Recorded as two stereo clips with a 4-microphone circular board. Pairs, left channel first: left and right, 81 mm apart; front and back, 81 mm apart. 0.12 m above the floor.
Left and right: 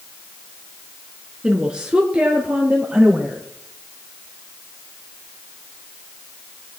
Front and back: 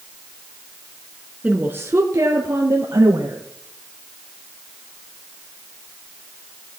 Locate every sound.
1.4 s a woman speaking: 150° right, 1.0 m; by 3.4 s 165° right, 2.5 m